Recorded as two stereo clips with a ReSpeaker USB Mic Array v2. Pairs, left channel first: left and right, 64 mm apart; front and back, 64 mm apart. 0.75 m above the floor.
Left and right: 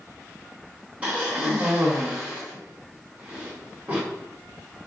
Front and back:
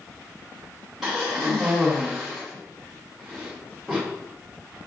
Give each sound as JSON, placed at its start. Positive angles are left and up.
{"t": 1.0, "sound": "a cough", "azimuth_deg": -110, "distance_m": 0.8}